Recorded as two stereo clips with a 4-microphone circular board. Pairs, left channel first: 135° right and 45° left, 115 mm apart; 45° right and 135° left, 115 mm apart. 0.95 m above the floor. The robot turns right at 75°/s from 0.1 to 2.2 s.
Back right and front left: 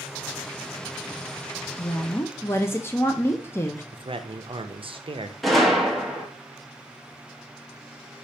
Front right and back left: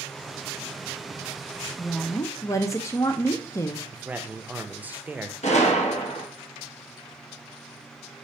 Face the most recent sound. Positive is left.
turn(degrees=-45)